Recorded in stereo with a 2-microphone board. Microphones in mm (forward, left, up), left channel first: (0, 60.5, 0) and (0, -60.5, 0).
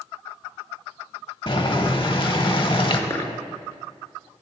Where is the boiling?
45° left (ahead or behind), 0.6 m.